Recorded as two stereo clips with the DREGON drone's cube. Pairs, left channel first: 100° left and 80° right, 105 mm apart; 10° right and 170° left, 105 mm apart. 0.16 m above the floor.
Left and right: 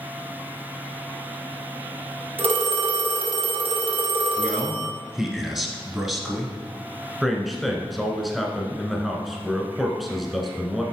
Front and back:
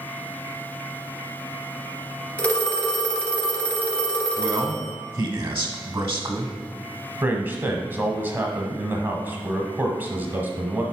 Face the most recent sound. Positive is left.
turn(degrees=-170)